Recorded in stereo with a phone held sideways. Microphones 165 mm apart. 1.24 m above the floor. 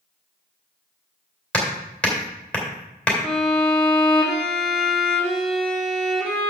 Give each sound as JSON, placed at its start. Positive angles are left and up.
{"t": 1.5, "sound": "hammering", "side_deg": 10, "distance_m": 3.0}
{"t": 3.2, "sound": "a violin", "side_deg": 0, "distance_m": 2.5}